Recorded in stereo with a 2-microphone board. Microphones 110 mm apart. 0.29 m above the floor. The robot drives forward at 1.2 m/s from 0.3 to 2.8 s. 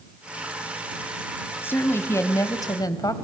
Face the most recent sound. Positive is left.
turn(degrees=35)  # may be behind; listen again after turning